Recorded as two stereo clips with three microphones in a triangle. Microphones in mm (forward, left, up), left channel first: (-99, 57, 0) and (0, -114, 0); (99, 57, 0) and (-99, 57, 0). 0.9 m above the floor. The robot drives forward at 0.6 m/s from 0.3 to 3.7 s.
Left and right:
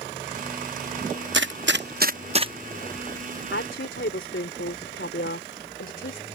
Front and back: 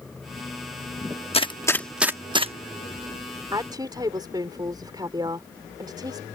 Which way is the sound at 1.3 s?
55° right.